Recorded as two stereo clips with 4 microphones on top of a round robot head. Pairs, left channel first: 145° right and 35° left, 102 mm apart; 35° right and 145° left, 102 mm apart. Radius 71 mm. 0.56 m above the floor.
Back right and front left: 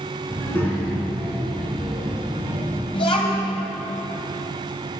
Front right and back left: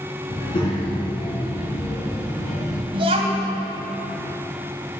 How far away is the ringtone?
No ringtone in this recording.